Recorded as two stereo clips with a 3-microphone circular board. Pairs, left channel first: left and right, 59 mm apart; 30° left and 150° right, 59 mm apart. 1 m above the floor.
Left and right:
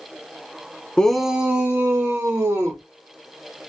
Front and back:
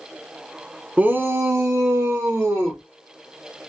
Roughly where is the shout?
Behind left.